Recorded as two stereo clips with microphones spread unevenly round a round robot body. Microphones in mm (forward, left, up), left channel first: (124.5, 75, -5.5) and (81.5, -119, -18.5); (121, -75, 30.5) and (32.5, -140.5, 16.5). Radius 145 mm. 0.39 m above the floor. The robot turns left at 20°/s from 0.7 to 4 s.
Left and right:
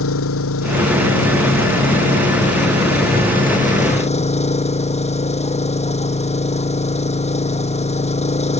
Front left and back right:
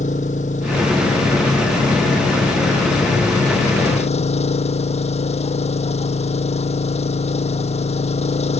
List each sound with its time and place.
0.0 s an engine running: 85° left; by 8.6 s 20° left